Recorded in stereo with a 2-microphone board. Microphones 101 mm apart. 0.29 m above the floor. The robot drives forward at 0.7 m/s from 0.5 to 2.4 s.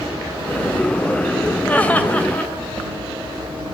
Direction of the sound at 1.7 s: 15° left (ahead or behind).